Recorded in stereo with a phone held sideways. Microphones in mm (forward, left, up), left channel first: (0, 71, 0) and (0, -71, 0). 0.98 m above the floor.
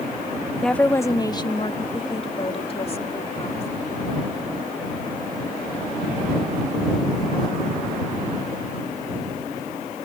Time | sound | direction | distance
0.6 | a woman speaking | centre (ahead or behind) | ?